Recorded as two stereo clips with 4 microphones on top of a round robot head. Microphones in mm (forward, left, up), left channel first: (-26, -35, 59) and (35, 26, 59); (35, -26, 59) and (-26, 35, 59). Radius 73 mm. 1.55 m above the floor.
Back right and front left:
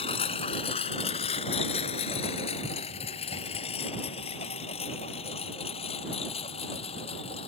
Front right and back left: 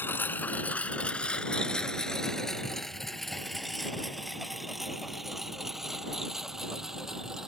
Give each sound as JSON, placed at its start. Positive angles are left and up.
{"t": 0.0, "sound": "a lawn mower", "azimuth_deg": -115}